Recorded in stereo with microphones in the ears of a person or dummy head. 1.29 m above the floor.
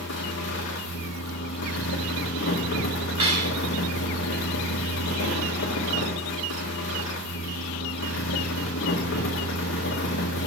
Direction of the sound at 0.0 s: 55° left (ahead or behind).